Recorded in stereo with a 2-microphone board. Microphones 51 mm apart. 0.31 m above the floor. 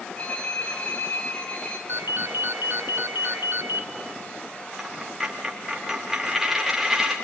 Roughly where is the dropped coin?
Centre.